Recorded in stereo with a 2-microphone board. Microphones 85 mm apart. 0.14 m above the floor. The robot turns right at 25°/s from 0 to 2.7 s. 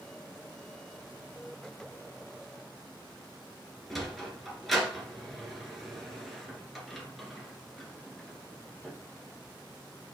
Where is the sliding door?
Centre (ahead or behind), 1.8 m.